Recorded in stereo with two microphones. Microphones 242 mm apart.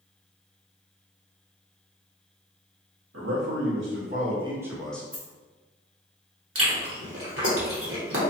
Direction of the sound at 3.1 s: 75° right (ahead or behind).